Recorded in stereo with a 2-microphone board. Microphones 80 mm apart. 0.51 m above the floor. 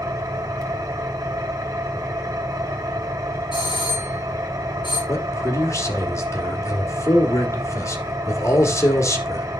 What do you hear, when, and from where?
0.0 s an engine running: 45° right (ahead or behind), 2.5 m
3.5 s a doorbell: 75° left (ahead or behind), 5.5 m
5.1 s a man speaking: 40° left (ahead or behind), 1.5 m